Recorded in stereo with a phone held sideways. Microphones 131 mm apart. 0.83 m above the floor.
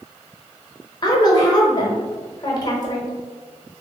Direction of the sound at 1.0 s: 35° left (ahead or behind).